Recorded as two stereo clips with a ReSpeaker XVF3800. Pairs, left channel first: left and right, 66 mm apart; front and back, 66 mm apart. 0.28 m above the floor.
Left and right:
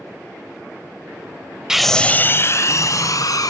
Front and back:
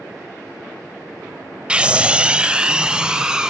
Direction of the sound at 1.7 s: 160° right.